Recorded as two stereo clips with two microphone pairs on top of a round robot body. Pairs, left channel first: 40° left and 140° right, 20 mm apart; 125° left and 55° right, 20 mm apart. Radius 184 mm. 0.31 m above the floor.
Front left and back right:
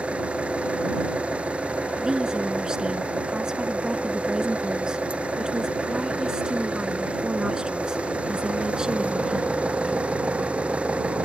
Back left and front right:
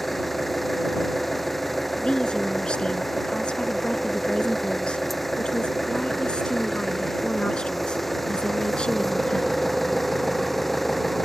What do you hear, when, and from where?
0.0 s an engine running: 150° right
2.0 s a woman speaking: 165° left